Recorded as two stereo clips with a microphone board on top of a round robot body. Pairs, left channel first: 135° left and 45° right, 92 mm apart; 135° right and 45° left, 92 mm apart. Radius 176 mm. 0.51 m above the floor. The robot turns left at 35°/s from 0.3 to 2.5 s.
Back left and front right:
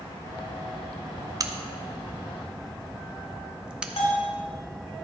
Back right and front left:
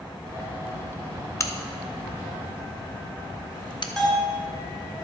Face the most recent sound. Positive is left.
turn(degrees=140)